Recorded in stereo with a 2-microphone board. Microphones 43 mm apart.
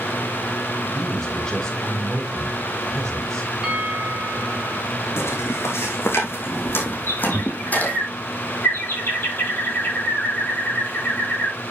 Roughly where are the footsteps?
Left.